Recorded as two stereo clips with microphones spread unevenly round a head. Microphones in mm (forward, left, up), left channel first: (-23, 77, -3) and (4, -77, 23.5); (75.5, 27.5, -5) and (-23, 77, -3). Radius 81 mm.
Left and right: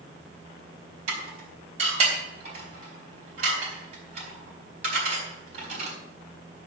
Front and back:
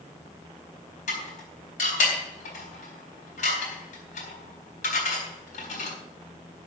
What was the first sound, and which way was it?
Dishes clattering, 30° right.